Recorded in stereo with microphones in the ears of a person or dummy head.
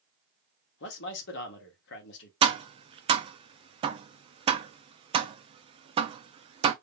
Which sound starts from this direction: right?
Tapping, at 2.4 s.